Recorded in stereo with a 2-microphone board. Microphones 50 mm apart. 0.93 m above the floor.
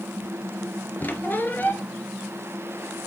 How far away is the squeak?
About 1.2 m.